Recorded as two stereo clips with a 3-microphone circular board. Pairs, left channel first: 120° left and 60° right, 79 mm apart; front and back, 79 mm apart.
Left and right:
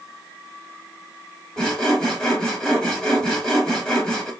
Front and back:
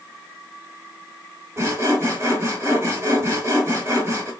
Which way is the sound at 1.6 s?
165° right.